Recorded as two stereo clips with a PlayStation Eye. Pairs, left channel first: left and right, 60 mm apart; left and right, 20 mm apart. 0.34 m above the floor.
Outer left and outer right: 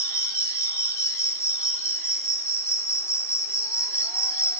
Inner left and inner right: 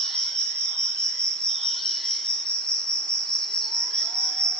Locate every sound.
0.0 s an insect: 50° left (ahead or behind), 3.5 m